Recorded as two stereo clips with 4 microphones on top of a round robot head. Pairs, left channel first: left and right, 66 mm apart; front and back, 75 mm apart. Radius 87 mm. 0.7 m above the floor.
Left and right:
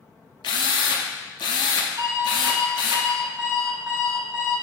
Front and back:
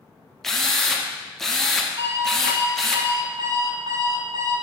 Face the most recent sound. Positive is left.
turn(degrees=-135)